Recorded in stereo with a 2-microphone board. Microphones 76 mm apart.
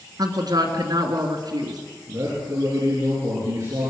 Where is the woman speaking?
55° right (ahead or behind), 3 m.